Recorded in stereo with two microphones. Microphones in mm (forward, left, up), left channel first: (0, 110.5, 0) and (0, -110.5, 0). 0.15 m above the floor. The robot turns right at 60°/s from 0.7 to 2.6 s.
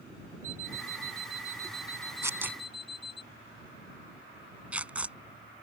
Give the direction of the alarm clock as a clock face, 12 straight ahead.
9 o'clock.